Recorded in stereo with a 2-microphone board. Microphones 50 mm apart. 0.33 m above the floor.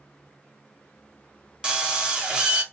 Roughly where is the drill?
Centre.